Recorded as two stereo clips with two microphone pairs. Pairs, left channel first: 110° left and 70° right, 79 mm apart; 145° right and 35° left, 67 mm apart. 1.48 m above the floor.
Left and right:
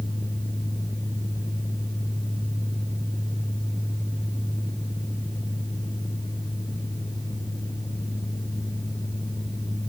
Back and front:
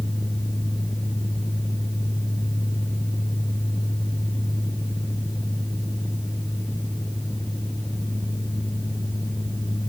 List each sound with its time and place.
Only background noise.